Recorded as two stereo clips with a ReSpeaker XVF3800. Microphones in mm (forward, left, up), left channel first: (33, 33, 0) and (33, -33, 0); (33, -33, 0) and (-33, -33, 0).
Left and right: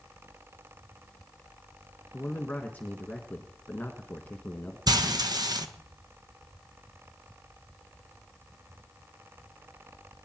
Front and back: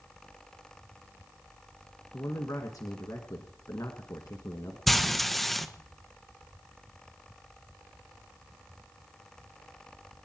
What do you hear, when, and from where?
2.1 s a man speaking: 25° left, 1.6 m
4.9 s frying: 85° right, 1.2 m